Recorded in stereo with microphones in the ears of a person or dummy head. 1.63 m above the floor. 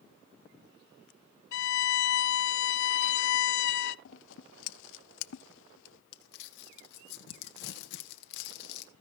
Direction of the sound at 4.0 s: 75° left (ahead or behind).